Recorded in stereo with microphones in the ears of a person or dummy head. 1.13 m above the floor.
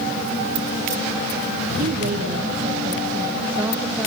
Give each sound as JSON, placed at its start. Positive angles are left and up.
{"t": 1.8, "sound": "a woman speaking", "side_deg": -50, "distance_m": 1.8}